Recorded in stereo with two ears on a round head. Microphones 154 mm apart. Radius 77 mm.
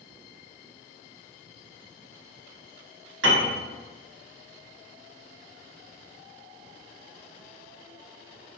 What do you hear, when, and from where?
3.2 s a piano: 85° right, 1.0 m